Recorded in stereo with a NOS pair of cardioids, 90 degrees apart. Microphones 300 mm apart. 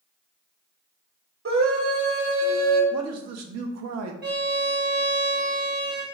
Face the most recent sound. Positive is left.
turn(degrees=-35)